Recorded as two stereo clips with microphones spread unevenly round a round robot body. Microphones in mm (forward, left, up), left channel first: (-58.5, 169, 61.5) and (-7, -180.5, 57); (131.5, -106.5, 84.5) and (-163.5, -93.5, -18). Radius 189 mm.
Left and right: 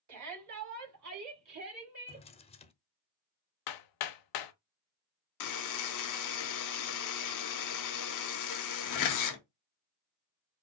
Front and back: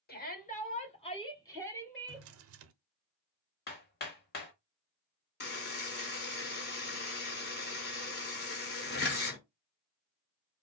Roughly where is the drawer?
Behind.